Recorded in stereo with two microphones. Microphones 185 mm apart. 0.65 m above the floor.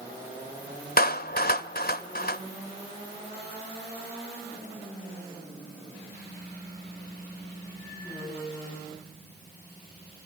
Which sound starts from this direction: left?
A clap, at 1.0 s.